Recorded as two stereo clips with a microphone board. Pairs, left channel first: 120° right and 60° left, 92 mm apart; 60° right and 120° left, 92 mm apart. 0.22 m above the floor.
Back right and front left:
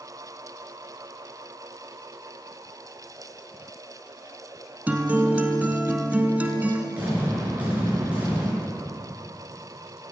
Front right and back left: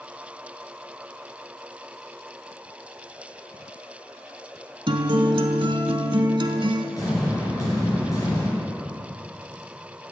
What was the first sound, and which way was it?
A guitar, 130° left.